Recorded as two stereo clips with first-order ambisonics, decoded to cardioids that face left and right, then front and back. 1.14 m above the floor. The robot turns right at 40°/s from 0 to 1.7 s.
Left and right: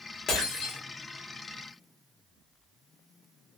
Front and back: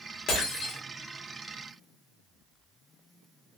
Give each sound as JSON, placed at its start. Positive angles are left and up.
{"t": 0.3, "sound": "breaking glass", "azimuth_deg": 40, "distance_m": 1.0}